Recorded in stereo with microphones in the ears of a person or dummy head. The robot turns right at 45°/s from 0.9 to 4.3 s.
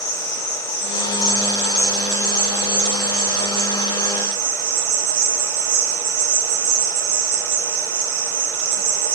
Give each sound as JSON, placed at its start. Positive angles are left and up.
{"t": 0.0, "sound": "an insect", "azimuth_deg": 75, "distance_m": 1.1}